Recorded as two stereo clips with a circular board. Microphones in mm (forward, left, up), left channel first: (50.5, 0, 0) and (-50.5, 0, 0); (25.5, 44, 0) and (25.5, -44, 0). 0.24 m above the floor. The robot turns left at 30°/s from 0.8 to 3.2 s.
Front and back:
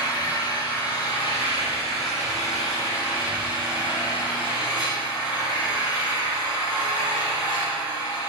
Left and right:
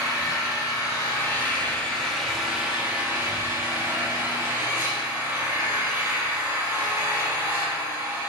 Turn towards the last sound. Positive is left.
turn(degrees=-25)